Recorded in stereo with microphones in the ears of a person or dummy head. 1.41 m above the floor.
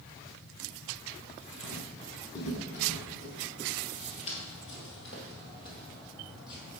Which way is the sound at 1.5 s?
30° left (ahead or behind).